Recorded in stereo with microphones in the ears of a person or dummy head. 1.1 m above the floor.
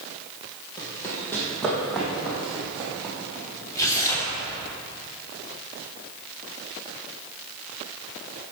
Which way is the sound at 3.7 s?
15° left (ahead or behind).